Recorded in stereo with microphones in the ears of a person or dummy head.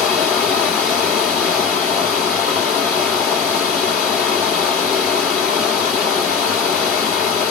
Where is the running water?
5° left (ahead or behind), 2.5 m.